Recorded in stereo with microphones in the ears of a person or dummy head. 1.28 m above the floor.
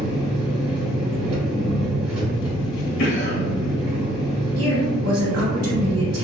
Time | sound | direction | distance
0.0 | an engine running | 25° right (ahead or behind) | 1.6 m
3.0 | a cough | 70° left (ahead or behind) | 1.3 m
4.6 | a woman speaking | 70° right (ahead or behind) | 1.7 m